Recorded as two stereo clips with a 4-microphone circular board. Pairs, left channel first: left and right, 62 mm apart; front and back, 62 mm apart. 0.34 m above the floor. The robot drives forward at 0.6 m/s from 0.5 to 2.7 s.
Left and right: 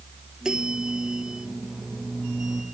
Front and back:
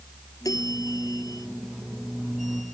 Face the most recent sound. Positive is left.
turn(degrees=-15)